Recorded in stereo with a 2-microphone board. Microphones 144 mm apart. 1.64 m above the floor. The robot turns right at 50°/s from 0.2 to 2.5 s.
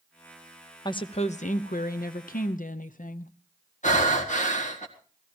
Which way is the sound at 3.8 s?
60° left (ahead or behind).